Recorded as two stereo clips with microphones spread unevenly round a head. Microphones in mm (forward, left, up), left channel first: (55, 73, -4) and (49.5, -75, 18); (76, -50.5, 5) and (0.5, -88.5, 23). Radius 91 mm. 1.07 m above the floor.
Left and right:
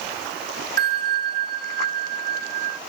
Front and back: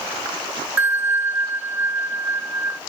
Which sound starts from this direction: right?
A bell, at 0.8 s.